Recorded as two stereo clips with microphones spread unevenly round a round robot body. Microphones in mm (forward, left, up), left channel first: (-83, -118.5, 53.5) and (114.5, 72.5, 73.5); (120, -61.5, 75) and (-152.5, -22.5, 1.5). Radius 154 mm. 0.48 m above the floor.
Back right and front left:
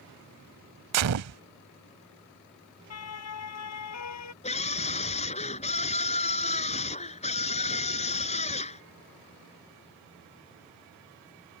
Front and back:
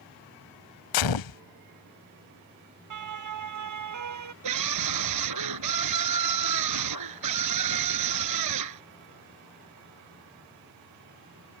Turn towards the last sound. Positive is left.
turn(degrees=155)